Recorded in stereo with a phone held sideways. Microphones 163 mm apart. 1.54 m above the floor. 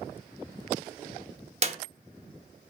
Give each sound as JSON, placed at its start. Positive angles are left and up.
{"t": 1.6, "sound": "a clap", "side_deg": -40, "distance_m": 1.3}